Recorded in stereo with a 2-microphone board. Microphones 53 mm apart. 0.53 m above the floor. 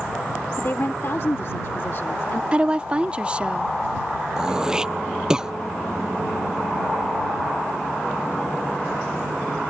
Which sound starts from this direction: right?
A woman speaking, at 2.5 s.